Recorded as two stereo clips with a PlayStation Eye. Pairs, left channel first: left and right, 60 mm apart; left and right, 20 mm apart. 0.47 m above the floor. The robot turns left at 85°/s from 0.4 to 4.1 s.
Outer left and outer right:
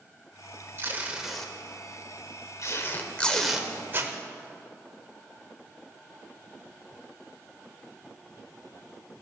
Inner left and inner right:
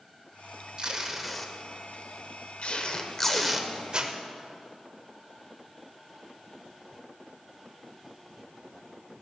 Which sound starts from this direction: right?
Tape being pulled, at 0.8 s.